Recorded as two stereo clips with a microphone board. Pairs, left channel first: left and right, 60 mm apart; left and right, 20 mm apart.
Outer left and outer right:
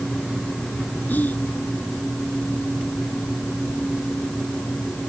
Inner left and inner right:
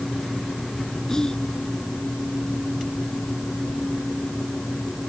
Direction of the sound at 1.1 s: 30° left (ahead or behind).